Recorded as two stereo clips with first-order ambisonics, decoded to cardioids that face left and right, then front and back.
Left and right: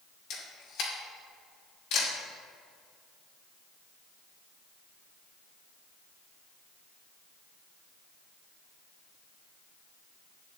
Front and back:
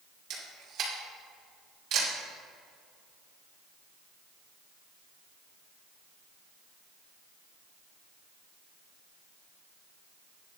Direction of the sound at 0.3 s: 130° left.